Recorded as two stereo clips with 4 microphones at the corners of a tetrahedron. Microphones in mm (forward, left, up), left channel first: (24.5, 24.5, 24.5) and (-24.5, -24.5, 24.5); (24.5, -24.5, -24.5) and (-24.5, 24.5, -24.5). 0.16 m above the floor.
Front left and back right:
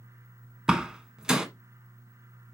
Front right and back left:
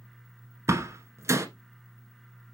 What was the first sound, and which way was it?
A door slam, 150° left.